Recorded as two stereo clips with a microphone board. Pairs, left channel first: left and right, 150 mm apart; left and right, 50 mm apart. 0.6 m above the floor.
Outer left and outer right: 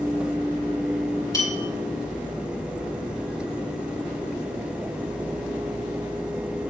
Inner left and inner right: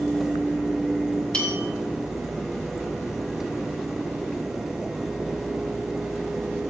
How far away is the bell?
About 3.5 m.